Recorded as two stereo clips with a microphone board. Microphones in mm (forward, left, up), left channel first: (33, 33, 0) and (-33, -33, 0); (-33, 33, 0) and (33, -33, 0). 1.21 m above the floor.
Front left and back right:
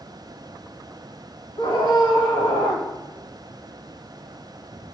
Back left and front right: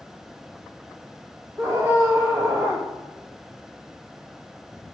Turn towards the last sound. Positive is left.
turn(degrees=20)